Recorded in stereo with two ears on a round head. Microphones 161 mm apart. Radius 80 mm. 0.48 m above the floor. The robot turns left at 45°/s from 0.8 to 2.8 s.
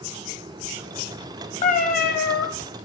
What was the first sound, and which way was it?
A cat meowing, 140° left.